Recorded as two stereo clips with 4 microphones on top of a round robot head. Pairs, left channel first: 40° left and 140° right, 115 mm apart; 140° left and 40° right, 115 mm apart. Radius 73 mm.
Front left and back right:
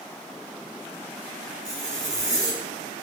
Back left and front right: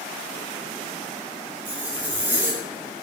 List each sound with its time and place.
1.6 s a zipper: 115° right, 3.5 m